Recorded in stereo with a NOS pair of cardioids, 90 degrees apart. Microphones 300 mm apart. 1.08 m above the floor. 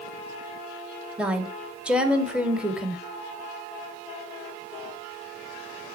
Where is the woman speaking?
5° right, 1.8 m.